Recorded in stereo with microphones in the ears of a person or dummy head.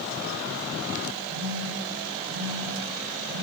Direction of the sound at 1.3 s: 80° right.